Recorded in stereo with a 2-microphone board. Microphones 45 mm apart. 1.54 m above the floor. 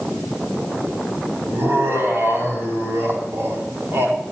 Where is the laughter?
65° right (ahead or behind), 5.5 m.